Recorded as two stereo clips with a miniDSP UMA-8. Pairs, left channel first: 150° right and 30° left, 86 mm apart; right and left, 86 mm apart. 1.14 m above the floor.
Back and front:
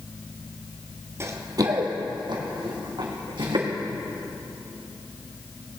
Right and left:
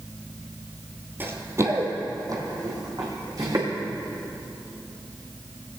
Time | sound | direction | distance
1.2 | running footsteps | 45° left | 1.3 m